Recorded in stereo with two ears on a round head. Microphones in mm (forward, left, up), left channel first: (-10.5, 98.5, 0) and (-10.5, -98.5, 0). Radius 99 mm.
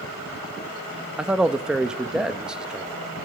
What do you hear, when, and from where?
1.2 s a man speaking: 5° right (ahead or behind), 0.6 m